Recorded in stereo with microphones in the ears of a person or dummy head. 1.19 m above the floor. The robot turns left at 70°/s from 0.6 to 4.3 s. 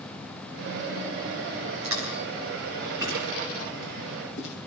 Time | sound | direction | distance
1.8 | chewing | 75° right (ahead or behind) | 8 m